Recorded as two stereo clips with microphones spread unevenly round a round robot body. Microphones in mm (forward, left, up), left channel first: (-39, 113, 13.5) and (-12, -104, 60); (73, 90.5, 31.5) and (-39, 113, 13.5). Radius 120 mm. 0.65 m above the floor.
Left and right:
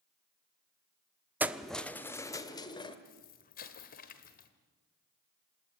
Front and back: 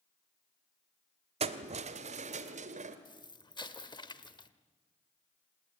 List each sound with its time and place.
1.4 s keys jangling: 170° right, 0.9 m; by 3.0 s 165° left, 2 m
3.0 s an explosion: 45° left, 1.6 m